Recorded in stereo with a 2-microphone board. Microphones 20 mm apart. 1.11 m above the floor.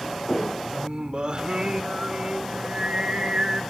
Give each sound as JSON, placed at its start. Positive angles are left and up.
{"t": 0.7, "sound": "singing", "side_deg": -50, "distance_m": 1.3}